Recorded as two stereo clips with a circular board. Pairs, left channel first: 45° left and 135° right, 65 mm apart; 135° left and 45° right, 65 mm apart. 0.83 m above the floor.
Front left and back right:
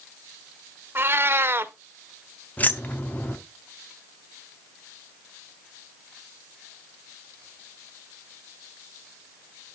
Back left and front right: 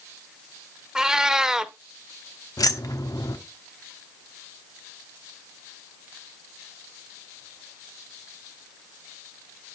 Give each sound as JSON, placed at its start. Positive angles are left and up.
{"t": 0.9, "sound": "a cat meowing", "azimuth_deg": -120, "distance_m": 0.6}
{"t": 2.6, "sound": "keys jangling", "azimuth_deg": 110, "distance_m": 1.0}